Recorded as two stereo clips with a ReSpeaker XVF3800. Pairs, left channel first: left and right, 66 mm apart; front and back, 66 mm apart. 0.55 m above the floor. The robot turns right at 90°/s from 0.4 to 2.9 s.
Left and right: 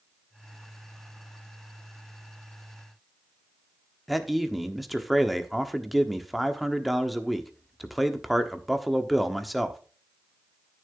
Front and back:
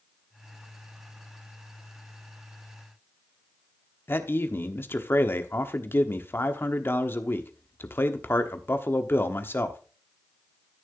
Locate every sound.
4.1 s a man speaking: straight ahead, 1.2 m